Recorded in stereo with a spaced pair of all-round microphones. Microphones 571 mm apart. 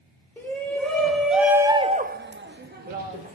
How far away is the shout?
About 2.5 m.